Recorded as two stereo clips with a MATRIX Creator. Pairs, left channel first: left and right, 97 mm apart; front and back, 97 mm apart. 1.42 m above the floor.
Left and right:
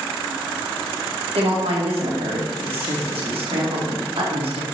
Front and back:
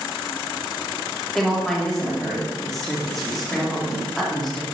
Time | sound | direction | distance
1.4 | a woman speaking | 85° right | 1.2 m